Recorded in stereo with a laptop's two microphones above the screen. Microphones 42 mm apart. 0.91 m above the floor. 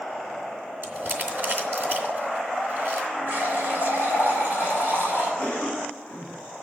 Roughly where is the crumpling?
Right.